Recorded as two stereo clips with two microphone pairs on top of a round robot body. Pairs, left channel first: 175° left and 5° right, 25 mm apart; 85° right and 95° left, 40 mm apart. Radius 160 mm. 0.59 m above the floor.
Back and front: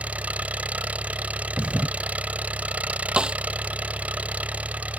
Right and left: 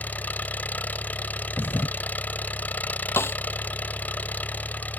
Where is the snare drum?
60° right.